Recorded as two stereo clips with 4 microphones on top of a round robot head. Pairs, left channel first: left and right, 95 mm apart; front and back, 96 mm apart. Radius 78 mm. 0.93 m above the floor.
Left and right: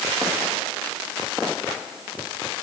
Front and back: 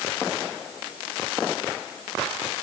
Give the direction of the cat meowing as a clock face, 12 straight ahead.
I don't hear a cat meowing.